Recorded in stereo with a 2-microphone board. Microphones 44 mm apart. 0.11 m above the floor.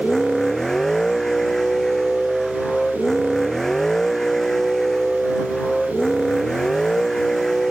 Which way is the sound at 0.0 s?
10° left (ahead or behind).